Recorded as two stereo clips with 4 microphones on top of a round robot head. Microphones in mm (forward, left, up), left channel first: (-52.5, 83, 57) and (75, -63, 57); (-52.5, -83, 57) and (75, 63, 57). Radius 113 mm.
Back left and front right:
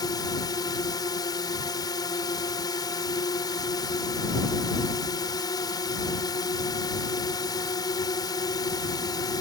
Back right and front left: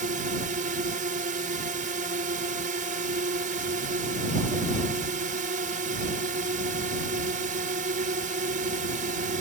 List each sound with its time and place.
0.0 s a drone: 70° left